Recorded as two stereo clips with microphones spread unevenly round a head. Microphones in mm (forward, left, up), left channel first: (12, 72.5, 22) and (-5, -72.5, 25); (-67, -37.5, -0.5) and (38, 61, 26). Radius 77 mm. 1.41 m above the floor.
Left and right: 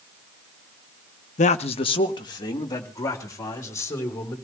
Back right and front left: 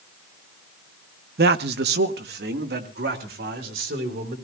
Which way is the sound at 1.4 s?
45° left.